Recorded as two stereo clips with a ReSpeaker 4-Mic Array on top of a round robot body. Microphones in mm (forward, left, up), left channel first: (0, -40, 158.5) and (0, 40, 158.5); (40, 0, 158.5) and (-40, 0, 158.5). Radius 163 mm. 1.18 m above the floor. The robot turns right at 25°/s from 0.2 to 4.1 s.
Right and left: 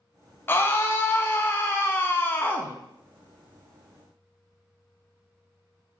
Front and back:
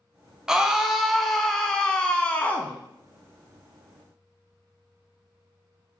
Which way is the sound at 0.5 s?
105° right.